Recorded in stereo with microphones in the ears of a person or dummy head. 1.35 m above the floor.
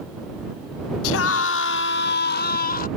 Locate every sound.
1.0 s a scream: 70° left (ahead or behind); by 2.9 s 60° left (ahead or behind)